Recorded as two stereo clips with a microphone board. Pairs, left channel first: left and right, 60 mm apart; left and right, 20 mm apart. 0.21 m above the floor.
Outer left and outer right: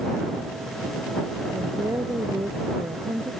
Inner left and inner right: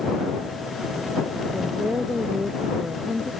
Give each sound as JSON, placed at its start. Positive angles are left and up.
{"t": 1.5, "sound": "a woman speaking", "side_deg": -75}